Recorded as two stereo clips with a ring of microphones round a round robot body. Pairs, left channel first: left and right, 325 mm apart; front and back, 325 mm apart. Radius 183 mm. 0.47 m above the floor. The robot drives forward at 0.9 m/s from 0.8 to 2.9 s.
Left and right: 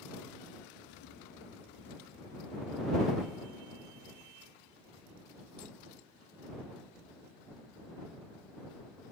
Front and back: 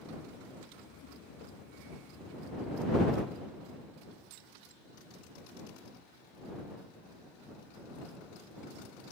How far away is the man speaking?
No man speaking in this recording.